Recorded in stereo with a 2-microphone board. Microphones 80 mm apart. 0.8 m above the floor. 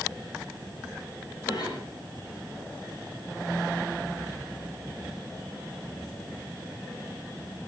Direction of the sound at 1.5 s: 70° left (ahead or behind).